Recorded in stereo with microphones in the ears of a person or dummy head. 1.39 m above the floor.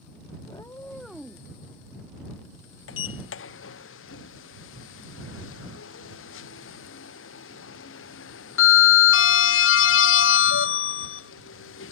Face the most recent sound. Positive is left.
turn(degrees=55)  # may be behind; listen again after turning